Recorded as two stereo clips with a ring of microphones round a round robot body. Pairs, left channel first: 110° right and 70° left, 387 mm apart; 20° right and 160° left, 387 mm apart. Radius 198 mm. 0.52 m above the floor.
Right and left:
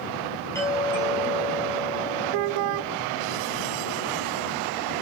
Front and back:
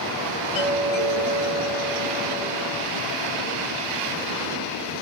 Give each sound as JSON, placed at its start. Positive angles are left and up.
{"t": 0.6, "sound": "a doorbell", "azimuth_deg": -30, "distance_m": 5.5}